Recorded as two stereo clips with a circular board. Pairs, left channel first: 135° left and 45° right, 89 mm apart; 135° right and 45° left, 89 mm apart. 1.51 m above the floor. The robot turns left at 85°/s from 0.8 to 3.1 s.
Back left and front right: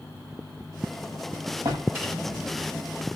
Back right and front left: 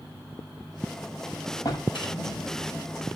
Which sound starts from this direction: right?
A drawer, at 1.6 s.